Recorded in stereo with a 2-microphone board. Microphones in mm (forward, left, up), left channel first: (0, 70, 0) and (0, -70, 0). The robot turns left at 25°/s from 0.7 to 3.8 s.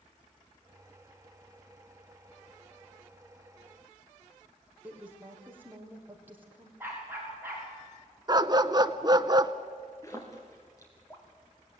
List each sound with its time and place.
4.8 s a woman speaking: 15° right (ahead or behind), 4.5 m
6.8 s a dog barking: 15° right (ahead or behind), 7.5 m
8.3 s a dog barking: 30° right (ahead or behind), 0.8 m
10.0 s a splash: 25° left (ahead or behind), 4.5 m